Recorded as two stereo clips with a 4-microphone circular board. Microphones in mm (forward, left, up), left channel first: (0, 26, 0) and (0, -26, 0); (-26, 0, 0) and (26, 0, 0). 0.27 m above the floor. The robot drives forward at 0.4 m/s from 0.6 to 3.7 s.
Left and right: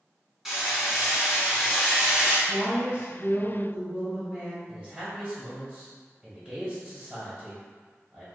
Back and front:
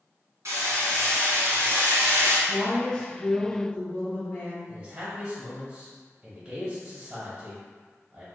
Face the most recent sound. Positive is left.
turn(degrees=-55)